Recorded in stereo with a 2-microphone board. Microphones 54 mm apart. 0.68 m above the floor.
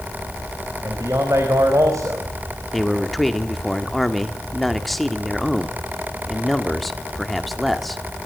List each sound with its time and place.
0.8 s a man speaking: 70° right (ahead or behind), 4.5 m
2.7 s a man speaking: centre (ahead or behind), 2 m